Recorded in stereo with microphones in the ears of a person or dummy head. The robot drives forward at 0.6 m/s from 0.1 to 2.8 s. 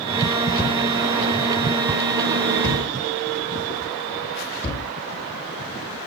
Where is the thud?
10° left (ahead or behind), 3 m; by 4.9 s 5° left (ahead or behind), 4.5 m.